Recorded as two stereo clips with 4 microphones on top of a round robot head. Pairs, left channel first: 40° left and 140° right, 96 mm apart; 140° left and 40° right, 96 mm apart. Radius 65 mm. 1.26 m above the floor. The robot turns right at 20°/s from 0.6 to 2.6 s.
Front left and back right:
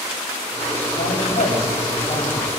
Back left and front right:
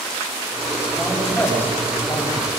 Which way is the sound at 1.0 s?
55° left.